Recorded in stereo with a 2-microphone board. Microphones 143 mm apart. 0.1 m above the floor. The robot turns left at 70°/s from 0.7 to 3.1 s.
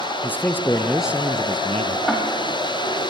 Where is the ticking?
5° left (ahead or behind), 3.5 m; by 2.2 s 15° left (ahead or behind), 3.5 m.